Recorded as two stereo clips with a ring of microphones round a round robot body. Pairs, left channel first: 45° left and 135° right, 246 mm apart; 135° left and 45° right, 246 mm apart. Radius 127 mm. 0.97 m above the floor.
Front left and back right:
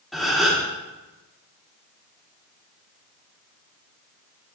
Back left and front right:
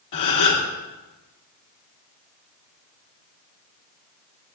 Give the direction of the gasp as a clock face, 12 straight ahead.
7 o'clock.